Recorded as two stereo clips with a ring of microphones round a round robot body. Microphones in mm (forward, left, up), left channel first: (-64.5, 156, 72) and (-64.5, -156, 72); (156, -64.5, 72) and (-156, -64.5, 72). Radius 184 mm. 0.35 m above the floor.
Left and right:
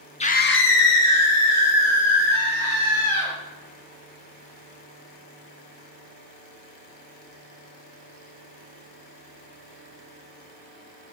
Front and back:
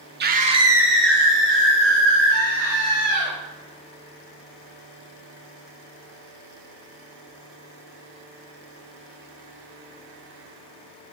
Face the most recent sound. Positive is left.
turn(degrees=60)